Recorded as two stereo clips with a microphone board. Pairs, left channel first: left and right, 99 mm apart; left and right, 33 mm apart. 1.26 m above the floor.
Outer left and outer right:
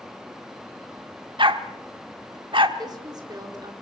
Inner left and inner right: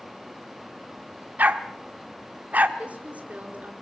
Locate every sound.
1.4 s a dog barking: 55° right (ahead or behind), 1.5 m
2.8 s a woman speaking: 45° right (ahead or behind), 4.5 m